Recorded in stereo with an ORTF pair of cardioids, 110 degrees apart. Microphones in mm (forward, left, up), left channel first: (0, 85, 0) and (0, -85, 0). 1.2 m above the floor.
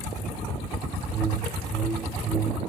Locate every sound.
1.1 s a whoosh: 25° right, 1.7 m